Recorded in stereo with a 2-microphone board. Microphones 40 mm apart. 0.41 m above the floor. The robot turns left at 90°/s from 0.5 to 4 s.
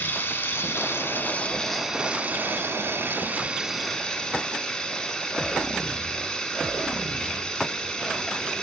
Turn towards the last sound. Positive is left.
turn(degrees=160)